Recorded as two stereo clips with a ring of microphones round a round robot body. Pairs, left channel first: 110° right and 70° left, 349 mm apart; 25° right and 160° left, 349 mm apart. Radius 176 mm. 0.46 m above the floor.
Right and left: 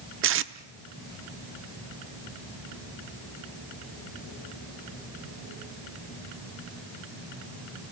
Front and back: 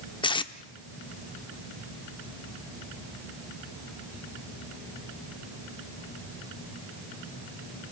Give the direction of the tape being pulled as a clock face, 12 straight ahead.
10 o'clock.